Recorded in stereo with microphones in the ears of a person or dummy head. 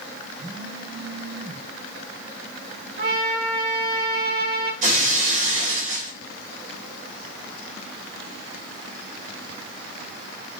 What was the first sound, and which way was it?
A phone buzzing, 25° right (ahead or behind).